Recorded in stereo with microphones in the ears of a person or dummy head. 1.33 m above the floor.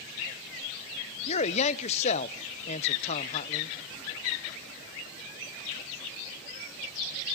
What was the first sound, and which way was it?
A man speaking, 35° left (ahead or behind).